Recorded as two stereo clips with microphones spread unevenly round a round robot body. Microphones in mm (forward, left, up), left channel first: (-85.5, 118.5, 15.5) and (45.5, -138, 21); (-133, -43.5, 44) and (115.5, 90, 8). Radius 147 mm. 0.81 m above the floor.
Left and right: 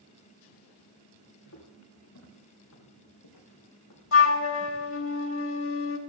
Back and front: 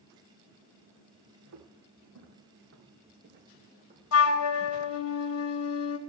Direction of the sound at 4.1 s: 165° left.